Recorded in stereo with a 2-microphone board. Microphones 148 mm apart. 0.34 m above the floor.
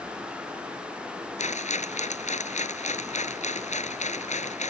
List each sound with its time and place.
1.4 s a rattle: 55° left (ahead or behind)